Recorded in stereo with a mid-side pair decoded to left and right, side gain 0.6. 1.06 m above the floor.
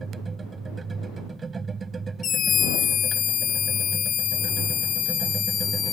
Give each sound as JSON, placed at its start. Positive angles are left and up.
{"t": 0.0, "sound": "a machine running", "azimuth_deg": -25}
{"t": 2.2, "sound": "a scream", "azimuth_deg": 45}